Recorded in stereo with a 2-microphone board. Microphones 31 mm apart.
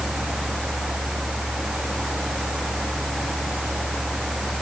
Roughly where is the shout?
No shout in this recording.